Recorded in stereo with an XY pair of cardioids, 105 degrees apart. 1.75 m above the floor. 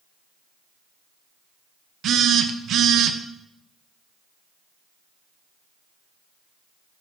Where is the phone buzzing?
65° right, 0.7 m.